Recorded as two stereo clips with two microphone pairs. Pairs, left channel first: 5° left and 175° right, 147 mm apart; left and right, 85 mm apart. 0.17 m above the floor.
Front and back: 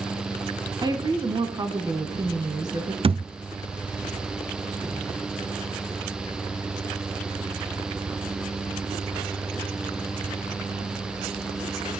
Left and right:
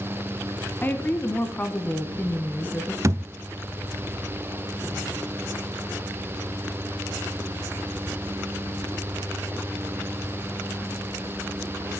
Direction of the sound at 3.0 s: 135° right.